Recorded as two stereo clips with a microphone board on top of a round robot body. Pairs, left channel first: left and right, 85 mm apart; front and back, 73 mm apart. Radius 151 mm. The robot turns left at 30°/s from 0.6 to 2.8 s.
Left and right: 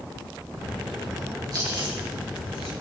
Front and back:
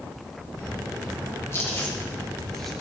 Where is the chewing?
50° right, 4.5 m; by 2.7 s 85° right, 4.5 m.